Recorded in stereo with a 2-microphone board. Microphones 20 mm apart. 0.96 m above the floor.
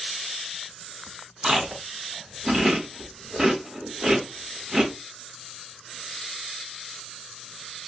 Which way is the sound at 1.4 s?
45° right (ahead or behind).